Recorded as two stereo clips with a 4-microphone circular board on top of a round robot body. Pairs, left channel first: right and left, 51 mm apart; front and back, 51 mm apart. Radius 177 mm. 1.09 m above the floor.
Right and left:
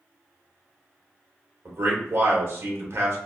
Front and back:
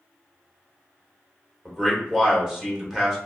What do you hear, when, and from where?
1.6 s a man speaking: 100° left, 1.5 m